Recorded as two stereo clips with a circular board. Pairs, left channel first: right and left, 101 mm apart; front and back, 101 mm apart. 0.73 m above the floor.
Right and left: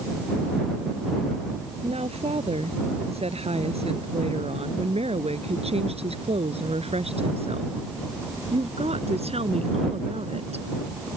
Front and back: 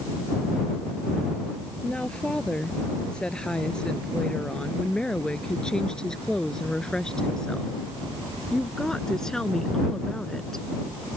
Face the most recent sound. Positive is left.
turn(degrees=85)